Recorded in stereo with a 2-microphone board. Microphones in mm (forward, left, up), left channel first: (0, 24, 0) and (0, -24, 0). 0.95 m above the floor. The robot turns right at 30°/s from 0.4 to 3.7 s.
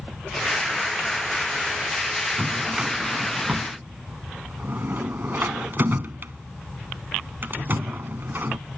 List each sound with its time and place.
2.4 s a drawer: 5° right (ahead or behind); by 8.6 s 45° right (ahead or behind)